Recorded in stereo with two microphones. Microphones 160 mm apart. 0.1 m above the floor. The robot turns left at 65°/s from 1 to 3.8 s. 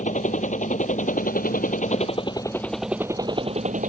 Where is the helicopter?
115° left; by 3.9 s 65° right.